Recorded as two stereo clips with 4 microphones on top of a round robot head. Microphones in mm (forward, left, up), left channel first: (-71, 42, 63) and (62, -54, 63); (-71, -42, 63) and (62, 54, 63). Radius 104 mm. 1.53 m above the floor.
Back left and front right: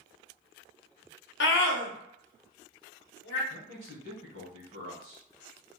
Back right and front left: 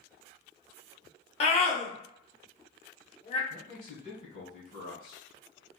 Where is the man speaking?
175° left, 1.4 m.